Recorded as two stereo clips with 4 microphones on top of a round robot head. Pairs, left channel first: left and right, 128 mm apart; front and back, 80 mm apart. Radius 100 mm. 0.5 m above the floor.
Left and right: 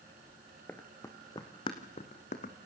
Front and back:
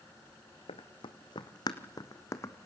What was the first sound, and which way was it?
Running footsteps, 10° left.